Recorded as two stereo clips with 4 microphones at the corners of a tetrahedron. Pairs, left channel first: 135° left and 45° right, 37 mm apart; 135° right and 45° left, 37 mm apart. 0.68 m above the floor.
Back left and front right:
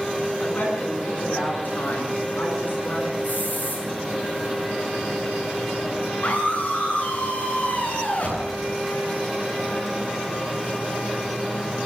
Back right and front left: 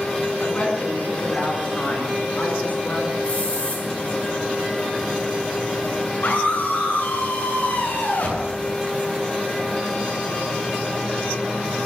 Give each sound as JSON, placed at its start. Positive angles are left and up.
{"t": 0.4, "sound": "a woman speaking", "azimuth_deg": 175, "distance_m": 8.0}
{"t": 3.2, "sound": "a hiss", "azimuth_deg": 175, "distance_m": 9.0}
{"t": 6.2, "sound": "a scream", "azimuth_deg": -170, "distance_m": 8.5}